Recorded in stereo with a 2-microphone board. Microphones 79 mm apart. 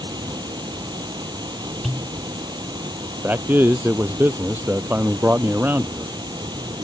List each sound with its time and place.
0.0 s running water: 60° right (ahead or behind)
1.8 s a pop: centre (ahead or behind)
3.2 s a man speaking: 25° right (ahead or behind)